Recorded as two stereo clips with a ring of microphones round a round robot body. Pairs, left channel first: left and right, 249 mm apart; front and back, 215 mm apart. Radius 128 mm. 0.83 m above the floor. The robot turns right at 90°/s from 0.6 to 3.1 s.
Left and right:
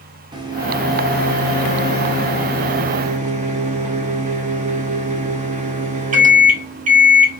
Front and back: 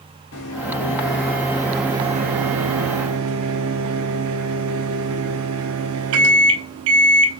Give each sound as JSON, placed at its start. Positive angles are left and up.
{"t": 0.3, "sound": "a microwave", "azimuth_deg": -15, "distance_m": 0.8}